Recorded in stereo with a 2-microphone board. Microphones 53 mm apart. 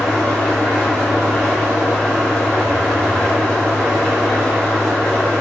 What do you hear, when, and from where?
0.0 s an engine running: 15° left (ahead or behind), 2 m